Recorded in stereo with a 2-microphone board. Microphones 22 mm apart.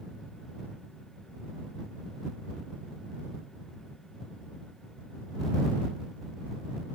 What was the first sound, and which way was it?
Only background noise.